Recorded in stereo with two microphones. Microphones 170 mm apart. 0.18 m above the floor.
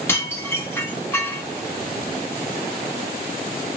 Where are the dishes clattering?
15° left (ahead or behind), 0.8 m.